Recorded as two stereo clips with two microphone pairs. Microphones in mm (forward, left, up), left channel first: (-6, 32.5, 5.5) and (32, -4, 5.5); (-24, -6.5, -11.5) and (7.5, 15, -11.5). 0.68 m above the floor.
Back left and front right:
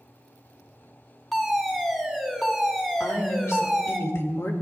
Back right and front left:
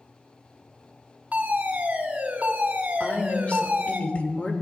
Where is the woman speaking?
165° left, 1.8 m.